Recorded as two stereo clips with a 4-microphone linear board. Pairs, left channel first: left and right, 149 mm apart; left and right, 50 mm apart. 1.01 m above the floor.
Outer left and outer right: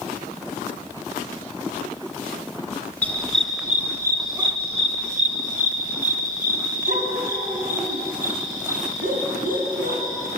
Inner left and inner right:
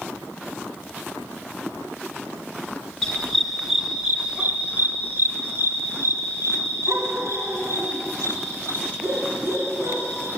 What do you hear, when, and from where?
3.0 s a dog barking: 10° left (ahead or behind), 1.2 m; by 10.3 s 65° right (ahead or behind), 4 m